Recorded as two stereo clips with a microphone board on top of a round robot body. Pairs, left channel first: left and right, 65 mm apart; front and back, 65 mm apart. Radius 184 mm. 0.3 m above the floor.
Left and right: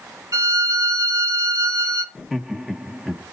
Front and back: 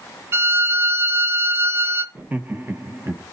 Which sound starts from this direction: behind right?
A violin, at 0.3 s.